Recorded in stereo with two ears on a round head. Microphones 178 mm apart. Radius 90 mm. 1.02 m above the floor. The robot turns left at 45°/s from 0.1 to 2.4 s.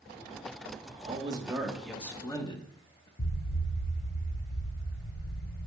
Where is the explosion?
35° left (ahead or behind), 0.5 m.